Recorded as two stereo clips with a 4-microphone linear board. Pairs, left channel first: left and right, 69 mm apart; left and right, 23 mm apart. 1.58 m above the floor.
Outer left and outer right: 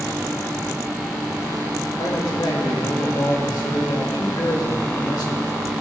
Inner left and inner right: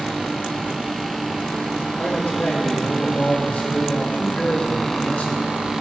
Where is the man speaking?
75° left (ahead or behind), 2.5 m.